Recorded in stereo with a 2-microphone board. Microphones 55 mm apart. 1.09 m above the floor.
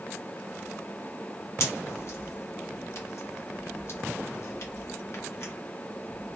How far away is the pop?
About 1.1 m.